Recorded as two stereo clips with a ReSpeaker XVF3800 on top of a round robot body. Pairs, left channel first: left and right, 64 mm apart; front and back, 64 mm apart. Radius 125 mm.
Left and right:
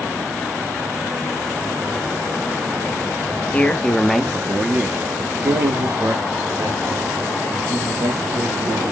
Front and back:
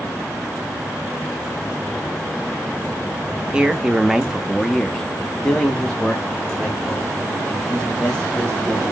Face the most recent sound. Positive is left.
turn(degrees=-70)